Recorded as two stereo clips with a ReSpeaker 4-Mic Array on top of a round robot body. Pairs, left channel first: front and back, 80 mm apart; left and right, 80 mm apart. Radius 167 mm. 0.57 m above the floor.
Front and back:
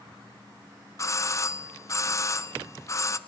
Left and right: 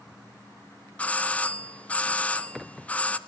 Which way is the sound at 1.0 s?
25° left.